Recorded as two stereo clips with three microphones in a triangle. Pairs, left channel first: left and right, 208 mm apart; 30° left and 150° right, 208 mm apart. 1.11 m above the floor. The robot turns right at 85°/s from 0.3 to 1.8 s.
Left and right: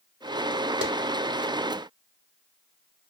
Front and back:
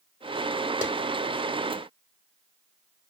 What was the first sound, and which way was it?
A clap, 70° right.